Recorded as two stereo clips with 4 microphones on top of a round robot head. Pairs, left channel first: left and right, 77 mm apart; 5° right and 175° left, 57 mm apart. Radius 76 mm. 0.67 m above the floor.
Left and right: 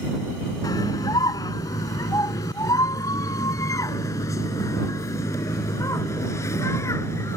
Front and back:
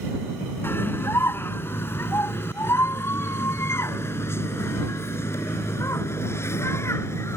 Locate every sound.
0.6 s a scream: 40° left; by 7.4 s 30° left